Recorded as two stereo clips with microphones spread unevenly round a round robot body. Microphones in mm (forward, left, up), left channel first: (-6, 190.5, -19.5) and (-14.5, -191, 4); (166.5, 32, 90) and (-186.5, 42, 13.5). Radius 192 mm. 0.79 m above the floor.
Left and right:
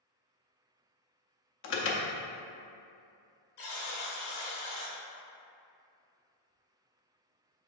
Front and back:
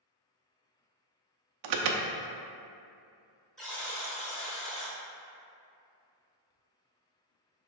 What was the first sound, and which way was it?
An alarm, 145° left.